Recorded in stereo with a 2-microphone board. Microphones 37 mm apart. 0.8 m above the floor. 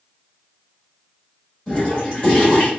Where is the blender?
I don't hear a blender.